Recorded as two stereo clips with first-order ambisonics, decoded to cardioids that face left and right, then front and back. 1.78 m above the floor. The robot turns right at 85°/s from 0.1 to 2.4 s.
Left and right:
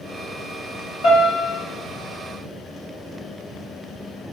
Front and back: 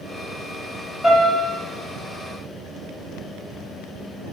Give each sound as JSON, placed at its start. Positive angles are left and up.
{"t": 1.0, "sound": "a piano", "azimuth_deg": 70, "distance_m": 1.6}